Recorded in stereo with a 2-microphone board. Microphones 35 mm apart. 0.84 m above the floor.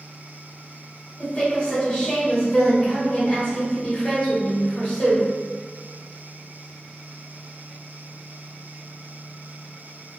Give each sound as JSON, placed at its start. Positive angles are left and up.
{"t": 1.2, "sound": "a woman speaking", "side_deg": 30, "distance_m": 1.7}